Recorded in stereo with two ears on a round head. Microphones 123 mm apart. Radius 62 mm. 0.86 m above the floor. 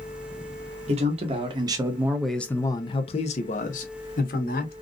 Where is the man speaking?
45° right (ahead or behind), 0.9 m; by 4.7 s 70° left (ahead or behind), 1.3 m.